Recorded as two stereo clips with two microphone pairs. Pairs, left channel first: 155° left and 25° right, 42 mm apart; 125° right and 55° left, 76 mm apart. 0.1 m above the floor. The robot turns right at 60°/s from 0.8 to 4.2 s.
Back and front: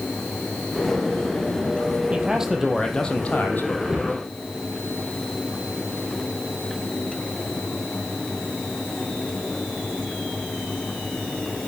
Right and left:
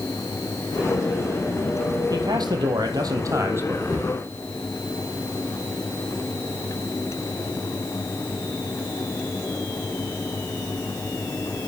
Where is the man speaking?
25° left, 3.5 m; by 3.8 s 125° left, 3.5 m.